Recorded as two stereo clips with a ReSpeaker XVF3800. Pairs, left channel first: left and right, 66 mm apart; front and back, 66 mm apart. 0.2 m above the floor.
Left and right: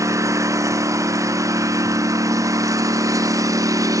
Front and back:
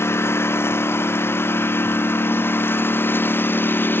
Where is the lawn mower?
50° right; by 4.0 s 60° right.